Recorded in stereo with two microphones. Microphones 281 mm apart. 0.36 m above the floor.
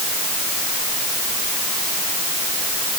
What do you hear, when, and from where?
Only background noise.